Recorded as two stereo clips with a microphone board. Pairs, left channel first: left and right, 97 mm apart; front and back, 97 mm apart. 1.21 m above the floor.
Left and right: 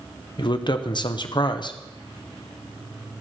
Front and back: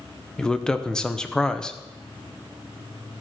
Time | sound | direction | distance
0.4 | a man speaking | 80° left | 0.7 m